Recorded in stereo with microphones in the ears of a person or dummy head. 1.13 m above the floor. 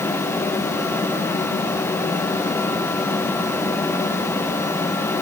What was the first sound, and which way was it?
Only background noise.